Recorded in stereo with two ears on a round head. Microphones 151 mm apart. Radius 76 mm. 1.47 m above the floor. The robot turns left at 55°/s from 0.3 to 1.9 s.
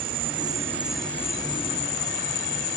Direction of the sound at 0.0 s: 145° right.